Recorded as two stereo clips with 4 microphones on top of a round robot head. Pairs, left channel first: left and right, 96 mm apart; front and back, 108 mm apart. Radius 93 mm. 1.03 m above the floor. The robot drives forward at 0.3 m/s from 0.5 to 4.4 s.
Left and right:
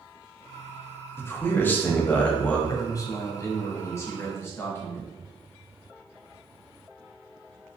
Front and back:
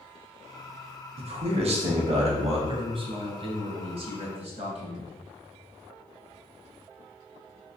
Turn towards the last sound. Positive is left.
turn(degrees=155)